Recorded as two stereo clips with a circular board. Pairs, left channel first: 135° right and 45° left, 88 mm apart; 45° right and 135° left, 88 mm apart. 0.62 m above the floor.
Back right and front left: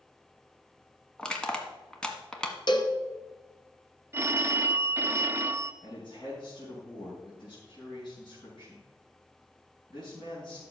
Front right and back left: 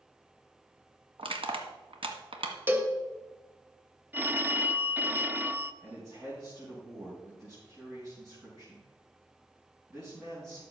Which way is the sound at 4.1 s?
80° left.